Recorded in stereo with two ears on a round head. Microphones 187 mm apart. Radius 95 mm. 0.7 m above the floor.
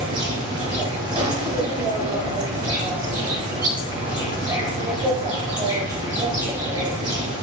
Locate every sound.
0.0 s an insect: 20° right (ahead or behind), 1.4 m